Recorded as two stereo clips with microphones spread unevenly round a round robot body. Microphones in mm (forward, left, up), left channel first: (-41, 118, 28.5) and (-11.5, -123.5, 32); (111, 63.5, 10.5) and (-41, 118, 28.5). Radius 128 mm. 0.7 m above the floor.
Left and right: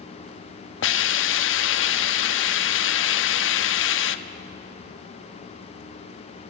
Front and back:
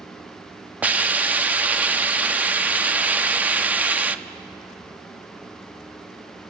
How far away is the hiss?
About 1.0 m.